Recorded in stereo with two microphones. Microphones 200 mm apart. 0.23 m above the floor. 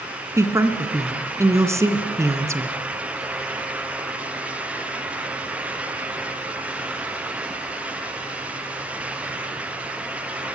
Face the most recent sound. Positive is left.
turn(degrees=-15)  # may be behind; listen again after turning